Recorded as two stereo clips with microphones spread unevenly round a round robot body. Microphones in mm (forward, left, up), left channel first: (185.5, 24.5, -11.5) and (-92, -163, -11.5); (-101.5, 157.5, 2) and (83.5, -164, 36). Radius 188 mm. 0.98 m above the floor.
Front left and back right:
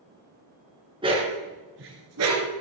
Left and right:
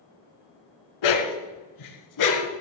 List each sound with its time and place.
1.0 s a dog barking: 135° left, 2.5 m; by 2.5 s 165° left, 3.5 m